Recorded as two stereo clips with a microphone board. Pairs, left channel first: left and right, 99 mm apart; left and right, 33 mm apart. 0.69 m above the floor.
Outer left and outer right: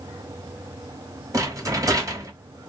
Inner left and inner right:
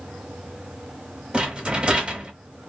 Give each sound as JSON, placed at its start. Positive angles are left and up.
{"t": 1.3, "sound": "a rattle", "side_deg": -30, "distance_m": 0.8}